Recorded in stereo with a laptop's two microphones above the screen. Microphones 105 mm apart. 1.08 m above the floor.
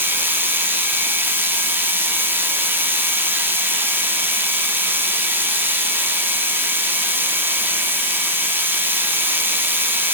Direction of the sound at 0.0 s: 20° right (ahead or behind).